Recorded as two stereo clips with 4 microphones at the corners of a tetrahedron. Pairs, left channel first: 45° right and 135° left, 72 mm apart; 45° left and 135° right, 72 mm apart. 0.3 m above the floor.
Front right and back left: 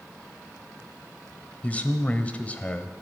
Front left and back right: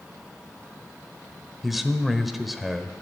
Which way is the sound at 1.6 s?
45° right.